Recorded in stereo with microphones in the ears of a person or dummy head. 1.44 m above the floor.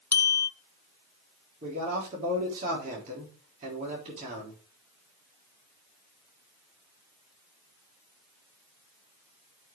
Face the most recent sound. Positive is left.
turn(degrees=-45)  # may be behind; listen again after turning